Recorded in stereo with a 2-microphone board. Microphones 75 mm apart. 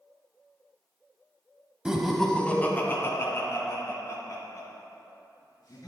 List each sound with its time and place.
1.9 s laughter: 10° right (ahead or behind), 1.2 m; by 5.9 s 55° left (ahead or behind), 5 m